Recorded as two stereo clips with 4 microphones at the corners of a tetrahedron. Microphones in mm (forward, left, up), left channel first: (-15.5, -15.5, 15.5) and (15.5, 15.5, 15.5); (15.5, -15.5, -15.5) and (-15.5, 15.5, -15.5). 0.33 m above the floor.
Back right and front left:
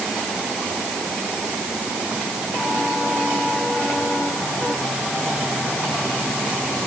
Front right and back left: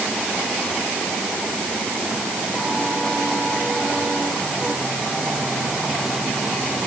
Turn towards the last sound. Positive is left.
No sound to turn to.